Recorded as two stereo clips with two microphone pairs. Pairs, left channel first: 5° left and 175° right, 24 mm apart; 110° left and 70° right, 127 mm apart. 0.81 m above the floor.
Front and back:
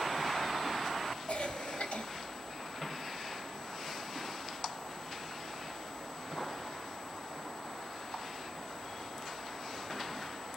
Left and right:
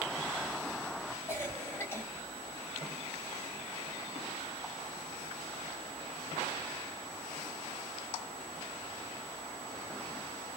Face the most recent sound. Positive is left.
turn(degrees=40)